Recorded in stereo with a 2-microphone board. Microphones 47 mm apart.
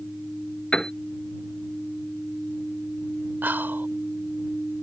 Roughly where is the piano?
Centre.